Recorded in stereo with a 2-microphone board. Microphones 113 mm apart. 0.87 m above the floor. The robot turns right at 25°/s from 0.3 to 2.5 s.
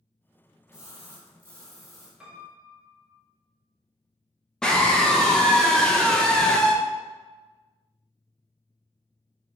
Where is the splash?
150° left, 1.4 m; by 2.1 s 175° right, 1.4 m.